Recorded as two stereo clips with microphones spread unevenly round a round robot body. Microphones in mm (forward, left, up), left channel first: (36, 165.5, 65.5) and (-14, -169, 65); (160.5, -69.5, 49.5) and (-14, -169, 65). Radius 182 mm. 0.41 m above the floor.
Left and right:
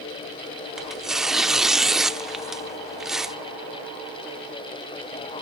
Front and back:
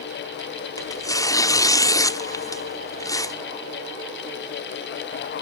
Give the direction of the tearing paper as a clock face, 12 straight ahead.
12 o'clock.